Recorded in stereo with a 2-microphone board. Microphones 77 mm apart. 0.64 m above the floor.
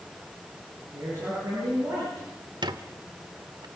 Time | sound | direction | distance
0.9 | a man speaking | 35° right (ahead or behind) | 9.5 m
2.6 | a squeak | 65° right (ahead or behind) | 1.1 m